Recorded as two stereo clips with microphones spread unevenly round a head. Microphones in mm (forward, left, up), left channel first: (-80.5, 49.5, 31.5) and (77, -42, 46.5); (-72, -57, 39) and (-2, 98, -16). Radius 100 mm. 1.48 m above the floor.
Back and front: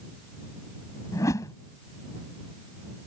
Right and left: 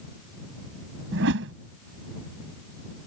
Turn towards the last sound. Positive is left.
turn(degrees=75)